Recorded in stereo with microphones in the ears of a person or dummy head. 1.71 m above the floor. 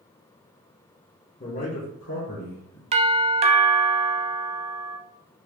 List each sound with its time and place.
1.4 s a man speaking: 25° left (ahead or behind), 0.9 m; by 2.8 s 75° left (ahead or behind), 1.5 m
2.9 s a doorbell: 30° right (ahead or behind), 0.5 m